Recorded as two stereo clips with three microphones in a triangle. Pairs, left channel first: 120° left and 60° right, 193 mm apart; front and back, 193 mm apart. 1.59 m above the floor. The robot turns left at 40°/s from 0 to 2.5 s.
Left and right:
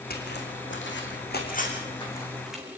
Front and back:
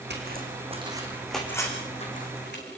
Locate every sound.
0.1 s footsteps: 155° left, 6 m; by 2.6 s 25° left, 7 m